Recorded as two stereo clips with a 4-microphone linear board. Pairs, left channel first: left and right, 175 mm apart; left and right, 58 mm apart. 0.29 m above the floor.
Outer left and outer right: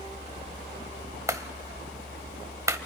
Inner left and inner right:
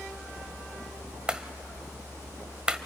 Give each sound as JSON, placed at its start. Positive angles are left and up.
{"t": 1.3, "sound": "a clap", "side_deg": -15, "distance_m": 0.8}